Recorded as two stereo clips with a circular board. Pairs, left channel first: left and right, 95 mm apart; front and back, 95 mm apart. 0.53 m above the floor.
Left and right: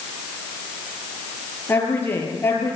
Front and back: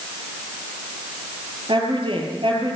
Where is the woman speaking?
155° left, 9.5 m.